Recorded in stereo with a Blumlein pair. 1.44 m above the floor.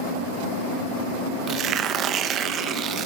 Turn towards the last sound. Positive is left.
turn(degrees=-30)